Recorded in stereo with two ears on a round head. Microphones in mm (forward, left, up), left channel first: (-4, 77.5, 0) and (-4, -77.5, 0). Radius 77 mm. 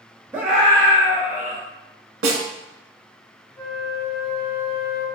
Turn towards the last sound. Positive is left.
turn(degrees=10)  # may be behind; listen again after turning